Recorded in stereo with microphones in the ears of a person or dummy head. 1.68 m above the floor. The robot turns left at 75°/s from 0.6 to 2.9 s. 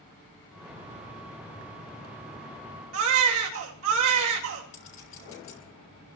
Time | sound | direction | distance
2.9 | a baby crying | 80° right | 2.5 m
4.7 | a clink | 40° left (ahead or behind) | 4.5 m